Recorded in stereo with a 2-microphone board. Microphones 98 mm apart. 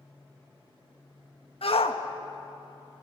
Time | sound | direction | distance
1.6 | a shout | 70° left (ahead or behind) | 1.7 m